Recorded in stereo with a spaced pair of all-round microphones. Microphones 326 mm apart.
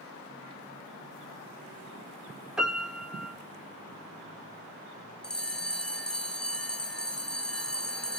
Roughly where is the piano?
Centre.